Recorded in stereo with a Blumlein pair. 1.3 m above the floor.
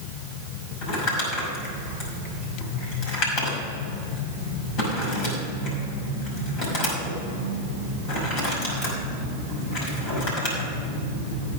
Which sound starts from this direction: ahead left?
Crumpling, at 0.8 s.